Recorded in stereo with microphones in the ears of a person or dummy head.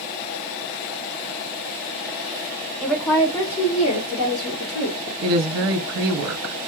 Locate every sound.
2.8 s a woman speaking: centre (ahead or behind), 1.0 m; by 5.1 s 80° left, 1.1 m
5.2 s a woman speaking: 80° right, 0.7 m